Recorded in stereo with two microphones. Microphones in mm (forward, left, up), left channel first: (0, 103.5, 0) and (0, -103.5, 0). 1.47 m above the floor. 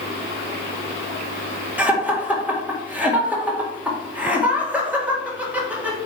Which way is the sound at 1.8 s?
5° right (ahead or behind).